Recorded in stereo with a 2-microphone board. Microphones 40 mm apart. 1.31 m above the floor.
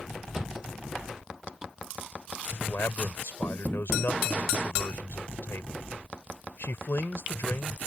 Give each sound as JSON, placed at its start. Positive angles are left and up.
{"t": 0.3, "sound": "a thud", "side_deg": -15}
{"t": 2.6, "sound": "a man speaking", "side_deg": 75}